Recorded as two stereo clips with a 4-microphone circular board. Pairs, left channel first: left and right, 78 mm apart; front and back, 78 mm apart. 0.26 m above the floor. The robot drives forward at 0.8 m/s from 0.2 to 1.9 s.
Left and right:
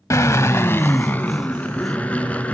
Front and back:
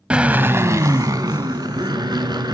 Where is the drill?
110° left, 0.7 m; by 2.5 s 165° left, 1.7 m.